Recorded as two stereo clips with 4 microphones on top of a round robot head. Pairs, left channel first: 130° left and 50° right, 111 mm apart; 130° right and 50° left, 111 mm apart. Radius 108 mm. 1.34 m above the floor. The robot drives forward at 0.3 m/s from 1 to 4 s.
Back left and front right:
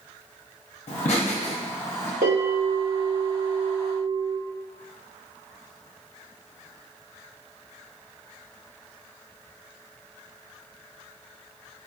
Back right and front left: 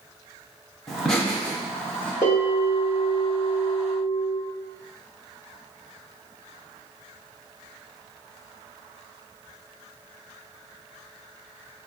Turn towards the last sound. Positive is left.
turn(degrees=-90)